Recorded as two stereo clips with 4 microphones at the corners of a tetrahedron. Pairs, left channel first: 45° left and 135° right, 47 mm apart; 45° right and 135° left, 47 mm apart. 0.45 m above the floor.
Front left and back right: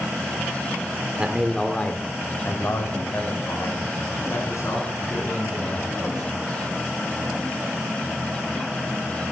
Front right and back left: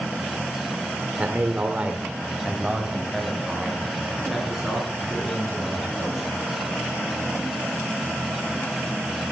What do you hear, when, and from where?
1.2 s a man speaking: 170° left, 1.1 m; by 6.3 s 45° left, 7 m